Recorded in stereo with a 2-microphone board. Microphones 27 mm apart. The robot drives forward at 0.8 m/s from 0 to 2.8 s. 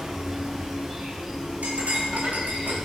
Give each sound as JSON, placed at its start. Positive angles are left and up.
{"t": 0.0, "sound": "an insect", "side_deg": -15, "distance_m": 1.1}
{"t": 1.6, "sound": "cutlery clinking", "side_deg": -85, "distance_m": 3.5}